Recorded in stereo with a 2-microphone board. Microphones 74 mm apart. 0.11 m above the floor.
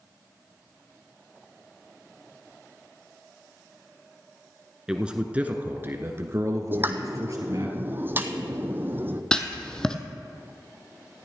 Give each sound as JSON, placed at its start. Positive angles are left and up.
{"t": 4.9, "sound": "a man speaking", "side_deg": -10, "distance_m": 1.3}
{"t": 6.7, "sound": "a pop", "side_deg": -30, "distance_m": 1.0}
{"t": 9.3, "sound": "writing", "side_deg": 10, "distance_m": 1.1}